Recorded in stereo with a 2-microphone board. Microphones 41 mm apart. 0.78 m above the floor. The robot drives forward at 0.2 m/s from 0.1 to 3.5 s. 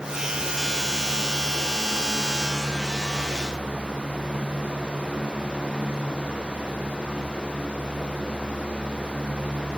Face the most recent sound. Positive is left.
No sound to turn to.